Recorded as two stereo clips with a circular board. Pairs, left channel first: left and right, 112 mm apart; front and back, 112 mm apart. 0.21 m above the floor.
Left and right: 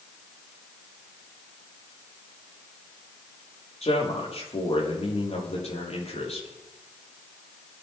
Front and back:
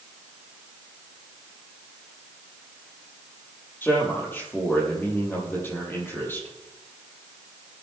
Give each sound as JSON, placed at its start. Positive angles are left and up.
{"t": 3.8, "sound": "a man speaking", "azimuth_deg": 70, "distance_m": 6.0}